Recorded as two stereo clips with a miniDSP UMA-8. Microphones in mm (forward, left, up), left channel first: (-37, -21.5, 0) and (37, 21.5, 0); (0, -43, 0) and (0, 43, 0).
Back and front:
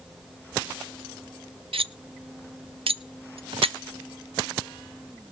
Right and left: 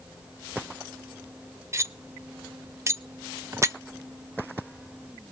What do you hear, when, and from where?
1.7 s cutlery clinking: 30° left, 0.5 m